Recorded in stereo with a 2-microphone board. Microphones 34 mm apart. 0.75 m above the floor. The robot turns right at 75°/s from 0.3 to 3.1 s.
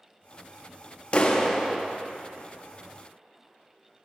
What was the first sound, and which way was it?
A clap, 140° left.